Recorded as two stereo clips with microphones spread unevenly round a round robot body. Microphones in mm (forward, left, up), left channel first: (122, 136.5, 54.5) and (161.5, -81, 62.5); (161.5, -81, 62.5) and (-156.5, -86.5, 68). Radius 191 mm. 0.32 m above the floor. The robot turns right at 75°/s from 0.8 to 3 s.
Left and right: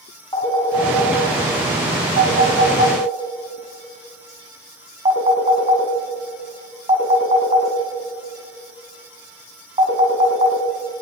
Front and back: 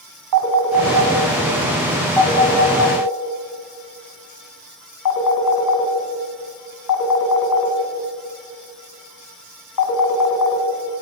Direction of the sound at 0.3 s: 175° left.